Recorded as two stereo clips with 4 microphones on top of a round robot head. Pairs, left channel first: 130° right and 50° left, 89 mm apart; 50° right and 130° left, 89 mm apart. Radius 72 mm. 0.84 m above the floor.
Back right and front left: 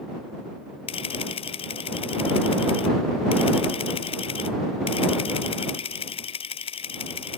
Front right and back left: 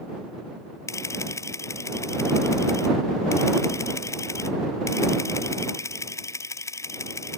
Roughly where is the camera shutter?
Right.